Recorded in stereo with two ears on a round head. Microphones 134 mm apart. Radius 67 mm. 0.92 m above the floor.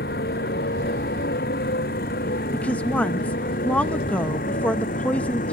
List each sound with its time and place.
0.0 s a motorcycle: 65° left (ahead or behind); by 5.5 s 50° left (ahead or behind)
2.5 s a woman speaking: 10° left (ahead or behind)